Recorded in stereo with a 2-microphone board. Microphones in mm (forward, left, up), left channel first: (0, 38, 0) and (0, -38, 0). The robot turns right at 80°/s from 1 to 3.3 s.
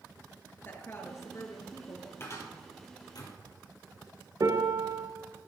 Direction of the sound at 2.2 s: 30° left (ahead or behind).